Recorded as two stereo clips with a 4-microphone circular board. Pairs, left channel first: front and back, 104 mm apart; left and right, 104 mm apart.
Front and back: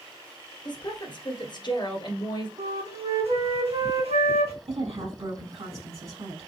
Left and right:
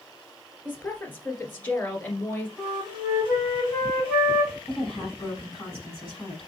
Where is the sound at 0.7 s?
20° left, 1.9 m.